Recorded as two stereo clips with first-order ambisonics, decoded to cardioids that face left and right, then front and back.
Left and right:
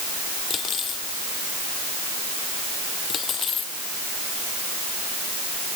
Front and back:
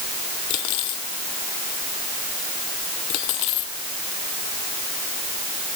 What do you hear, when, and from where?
0.5 s cutlery clinking: 25° left